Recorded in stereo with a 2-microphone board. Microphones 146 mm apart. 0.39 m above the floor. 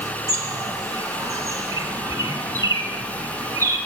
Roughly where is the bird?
Right.